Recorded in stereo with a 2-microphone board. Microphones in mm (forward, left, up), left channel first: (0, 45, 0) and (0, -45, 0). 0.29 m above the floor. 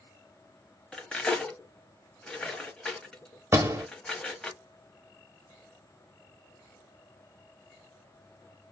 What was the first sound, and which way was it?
Cutlery clinking, 10° left (ahead or behind).